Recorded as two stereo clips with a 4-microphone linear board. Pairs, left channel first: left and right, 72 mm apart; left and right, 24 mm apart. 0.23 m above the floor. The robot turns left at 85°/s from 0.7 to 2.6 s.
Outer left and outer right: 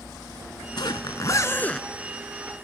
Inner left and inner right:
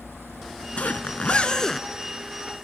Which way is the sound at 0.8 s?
100° left.